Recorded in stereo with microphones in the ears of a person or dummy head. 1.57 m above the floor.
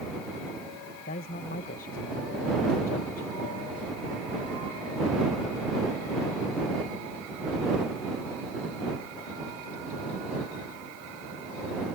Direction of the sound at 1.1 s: 40° left (ahead or behind).